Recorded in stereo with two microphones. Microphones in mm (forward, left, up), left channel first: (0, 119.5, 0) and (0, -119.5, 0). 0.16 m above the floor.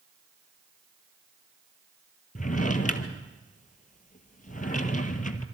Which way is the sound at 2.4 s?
35° left (ahead or behind).